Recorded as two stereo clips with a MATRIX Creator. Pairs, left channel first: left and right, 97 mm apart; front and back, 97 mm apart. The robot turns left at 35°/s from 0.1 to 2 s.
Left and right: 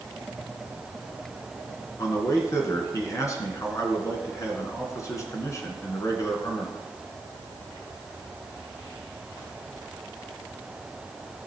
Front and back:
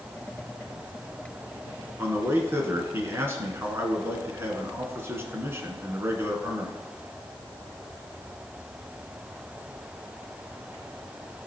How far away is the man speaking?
About 2 m.